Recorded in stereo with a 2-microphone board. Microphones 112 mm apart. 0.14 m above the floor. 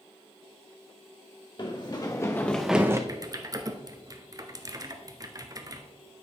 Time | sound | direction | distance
1.6 | running footsteps | 40° left (ahead or behind) | 1.6 m
3.1 | typing on a keyboard | 30° right (ahead or behind) | 0.7 m